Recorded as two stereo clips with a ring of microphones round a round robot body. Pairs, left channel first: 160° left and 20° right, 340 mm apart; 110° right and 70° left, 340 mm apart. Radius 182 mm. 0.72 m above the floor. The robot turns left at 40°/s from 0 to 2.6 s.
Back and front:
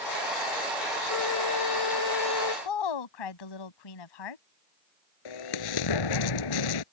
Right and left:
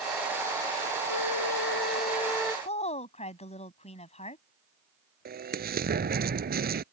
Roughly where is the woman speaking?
Behind.